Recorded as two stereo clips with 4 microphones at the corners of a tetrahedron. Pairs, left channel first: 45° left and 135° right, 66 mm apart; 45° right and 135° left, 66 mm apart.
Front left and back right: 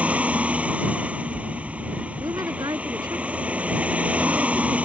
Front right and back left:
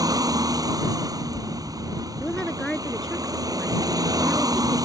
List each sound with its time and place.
0.0 s a vehicle: 155° left
2.2 s a woman speaking: 125° right